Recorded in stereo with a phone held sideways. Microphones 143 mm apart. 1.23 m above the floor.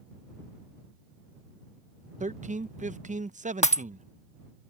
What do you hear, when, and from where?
2.2 s a man speaking: 60° right (ahead or behind)
3.6 s breaking glass: 50° left (ahead or behind)